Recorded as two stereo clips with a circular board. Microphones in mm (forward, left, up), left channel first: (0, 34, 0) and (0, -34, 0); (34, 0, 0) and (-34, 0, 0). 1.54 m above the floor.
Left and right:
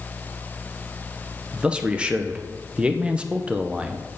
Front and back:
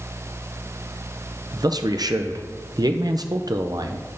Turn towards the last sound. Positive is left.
turn(degrees=-165)